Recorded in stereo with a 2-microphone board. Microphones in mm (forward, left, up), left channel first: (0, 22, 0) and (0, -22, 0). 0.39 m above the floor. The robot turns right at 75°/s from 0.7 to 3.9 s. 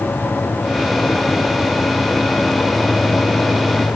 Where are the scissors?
No scissors in this recording.